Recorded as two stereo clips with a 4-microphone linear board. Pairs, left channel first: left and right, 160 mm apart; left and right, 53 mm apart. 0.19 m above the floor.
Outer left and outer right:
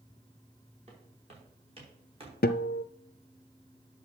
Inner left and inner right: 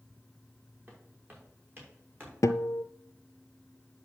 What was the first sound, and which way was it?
Footsteps, 40° right (ahead or behind).